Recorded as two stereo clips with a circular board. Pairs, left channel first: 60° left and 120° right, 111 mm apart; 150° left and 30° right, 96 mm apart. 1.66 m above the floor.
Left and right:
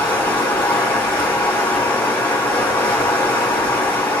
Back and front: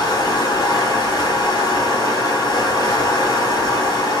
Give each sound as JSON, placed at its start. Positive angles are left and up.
{"t": 0.0, "sound": "running water", "azimuth_deg": 120, "distance_m": 2.0}